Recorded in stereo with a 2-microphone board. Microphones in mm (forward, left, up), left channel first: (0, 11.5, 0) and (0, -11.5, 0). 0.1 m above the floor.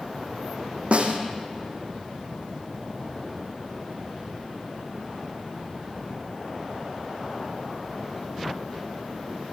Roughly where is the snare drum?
Right.